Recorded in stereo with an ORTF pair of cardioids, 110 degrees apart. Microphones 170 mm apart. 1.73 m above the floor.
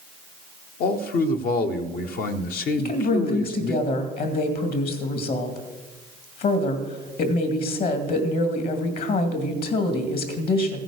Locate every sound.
0.8 s a man speaking: 60° left, 1.0 m
2.8 s a woman speaking: 65° left, 2.5 m